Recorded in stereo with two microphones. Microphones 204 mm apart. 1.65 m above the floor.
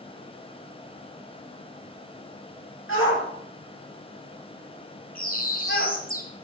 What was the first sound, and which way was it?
A shout, 85° left.